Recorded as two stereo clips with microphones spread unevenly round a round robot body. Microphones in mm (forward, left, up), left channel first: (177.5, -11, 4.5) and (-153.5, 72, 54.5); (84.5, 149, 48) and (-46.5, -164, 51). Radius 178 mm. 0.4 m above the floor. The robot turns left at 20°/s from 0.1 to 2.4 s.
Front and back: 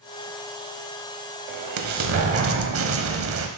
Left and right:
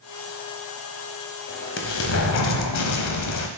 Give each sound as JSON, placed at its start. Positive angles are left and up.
{"t": 1.5, "sound": "an explosion", "azimuth_deg": 130, "distance_m": 1.0}